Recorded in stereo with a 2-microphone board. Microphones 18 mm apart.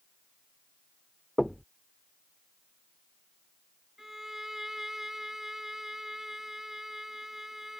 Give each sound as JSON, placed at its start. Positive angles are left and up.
{"t": 1.4, "sound": "knocking", "side_deg": 10}
{"t": 4.0, "sound": "a violin", "side_deg": -20}